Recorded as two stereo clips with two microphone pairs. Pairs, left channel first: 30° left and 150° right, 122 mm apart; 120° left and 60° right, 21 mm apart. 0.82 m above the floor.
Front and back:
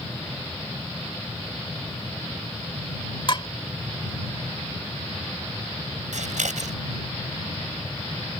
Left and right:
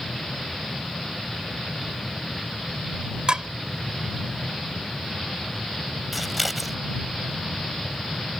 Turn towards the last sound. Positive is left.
turn(degrees=-150)